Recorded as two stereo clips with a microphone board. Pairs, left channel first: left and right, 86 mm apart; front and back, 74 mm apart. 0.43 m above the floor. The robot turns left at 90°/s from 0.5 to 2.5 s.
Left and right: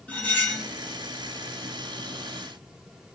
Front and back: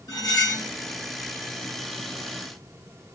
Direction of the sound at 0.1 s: 20° left.